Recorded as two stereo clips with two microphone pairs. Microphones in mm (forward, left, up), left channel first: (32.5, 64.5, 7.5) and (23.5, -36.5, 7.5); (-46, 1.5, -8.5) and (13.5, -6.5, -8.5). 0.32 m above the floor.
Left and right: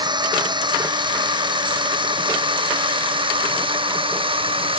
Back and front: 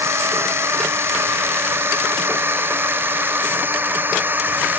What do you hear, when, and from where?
0.0 s a drone: 50° right; by 4.8 s 65° right